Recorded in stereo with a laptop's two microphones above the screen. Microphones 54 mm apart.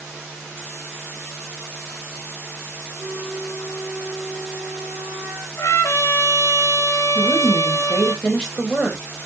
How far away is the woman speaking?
About 4.5 m.